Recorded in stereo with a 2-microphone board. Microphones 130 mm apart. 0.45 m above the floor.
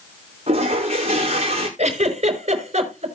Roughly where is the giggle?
Right.